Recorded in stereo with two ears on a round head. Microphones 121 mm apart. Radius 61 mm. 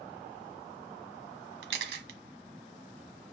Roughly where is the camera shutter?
Right.